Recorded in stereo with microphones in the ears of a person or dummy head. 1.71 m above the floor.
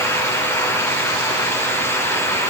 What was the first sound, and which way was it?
Only background noise.